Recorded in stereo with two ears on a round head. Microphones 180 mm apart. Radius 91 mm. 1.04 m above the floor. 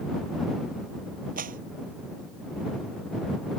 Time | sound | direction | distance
1.4 | a clap | 45° right (ahead or behind) | ?